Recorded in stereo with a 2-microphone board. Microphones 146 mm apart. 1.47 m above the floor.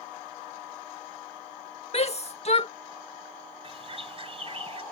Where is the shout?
45° left (ahead or behind).